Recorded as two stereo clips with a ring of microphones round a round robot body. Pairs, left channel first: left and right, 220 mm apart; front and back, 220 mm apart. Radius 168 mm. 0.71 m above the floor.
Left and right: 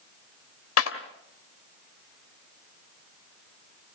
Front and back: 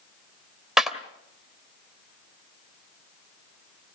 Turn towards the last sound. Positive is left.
turn(degrees=90)